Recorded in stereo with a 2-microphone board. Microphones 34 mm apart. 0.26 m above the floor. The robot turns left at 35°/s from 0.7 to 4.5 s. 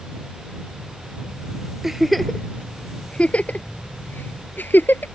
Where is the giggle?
10° right (ahead or behind); by 5.1 s 75° left (ahead or behind).